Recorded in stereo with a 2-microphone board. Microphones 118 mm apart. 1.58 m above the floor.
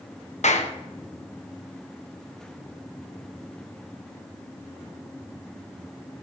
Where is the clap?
75° left (ahead or behind), 0.9 m.